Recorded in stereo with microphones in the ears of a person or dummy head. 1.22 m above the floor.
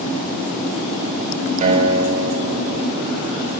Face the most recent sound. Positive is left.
turn(degrees=-40)  # may be behind; listen again after turning